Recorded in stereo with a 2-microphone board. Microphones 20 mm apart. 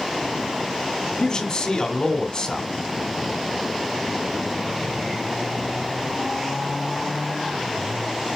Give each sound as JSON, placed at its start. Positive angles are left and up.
{"t": 1.2, "sound": "a man speaking", "side_deg": 35, "distance_m": 2.5}